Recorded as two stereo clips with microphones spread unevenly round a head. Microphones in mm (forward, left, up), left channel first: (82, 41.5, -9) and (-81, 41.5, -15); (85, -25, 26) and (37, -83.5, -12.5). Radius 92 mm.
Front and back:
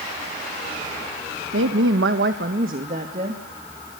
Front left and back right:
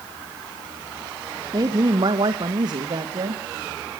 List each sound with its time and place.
1.5 s a woman speaking: 170° right, 1.4 m; by 3.4 s 120° right, 2.5 m